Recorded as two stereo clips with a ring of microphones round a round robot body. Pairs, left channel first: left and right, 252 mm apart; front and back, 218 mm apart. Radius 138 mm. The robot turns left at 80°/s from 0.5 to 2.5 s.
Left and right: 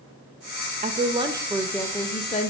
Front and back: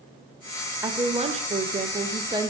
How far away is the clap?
I don't hear a clap.